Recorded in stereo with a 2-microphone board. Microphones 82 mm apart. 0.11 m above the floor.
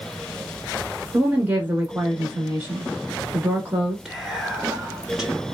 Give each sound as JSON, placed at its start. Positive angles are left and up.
{"t": 1.1, "sound": "a woman speaking", "side_deg": -20, "distance_m": 1.4}
{"t": 4.0, "sound": "whispering", "side_deg": -5, "distance_m": 1.1}